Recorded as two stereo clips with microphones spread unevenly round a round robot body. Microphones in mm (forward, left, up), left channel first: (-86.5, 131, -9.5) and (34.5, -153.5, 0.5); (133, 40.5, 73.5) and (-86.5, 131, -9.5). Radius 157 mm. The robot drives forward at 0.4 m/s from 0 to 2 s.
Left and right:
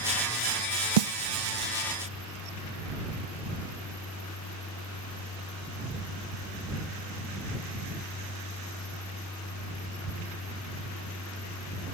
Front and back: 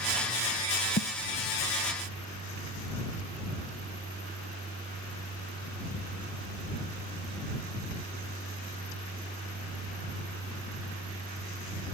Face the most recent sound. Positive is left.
turn(degrees=-120)